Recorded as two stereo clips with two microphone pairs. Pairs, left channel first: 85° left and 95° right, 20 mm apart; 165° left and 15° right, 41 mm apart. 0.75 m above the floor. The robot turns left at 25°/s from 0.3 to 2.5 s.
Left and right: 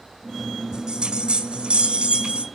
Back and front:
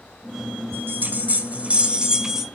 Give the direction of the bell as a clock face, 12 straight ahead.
2 o'clock.